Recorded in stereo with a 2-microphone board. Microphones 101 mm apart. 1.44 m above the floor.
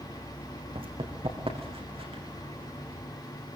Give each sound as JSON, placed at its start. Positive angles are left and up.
{"t": 0.8, "sound": "running footsteps", "side_deg": -60, "distance_m": 4.0}